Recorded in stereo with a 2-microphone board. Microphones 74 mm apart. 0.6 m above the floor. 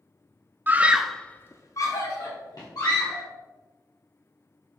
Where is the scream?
25° right (ahead or behind), 0.8 m; by 3.3 s 55° left (ahead or behind), 2.5 m.